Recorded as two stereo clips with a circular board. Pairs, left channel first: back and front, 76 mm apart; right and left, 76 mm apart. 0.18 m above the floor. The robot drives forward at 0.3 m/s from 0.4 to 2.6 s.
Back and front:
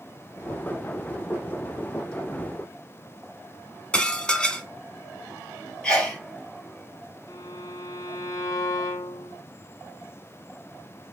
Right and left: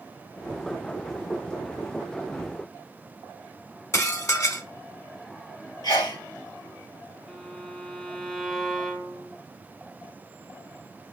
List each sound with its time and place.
3.9 s dishes clattering: 110° right, 1.1 m
5.8 s a sneeze: 100° right, 3.5 m
7.3 s a violin: 170° right, 0.9 m